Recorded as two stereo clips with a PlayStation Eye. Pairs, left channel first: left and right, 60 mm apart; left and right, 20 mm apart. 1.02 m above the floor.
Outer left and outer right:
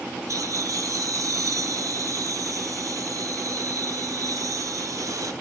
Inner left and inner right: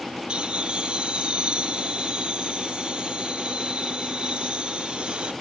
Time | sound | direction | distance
0.3 | laughter | 65° right (ahead or behind) | 0.6 m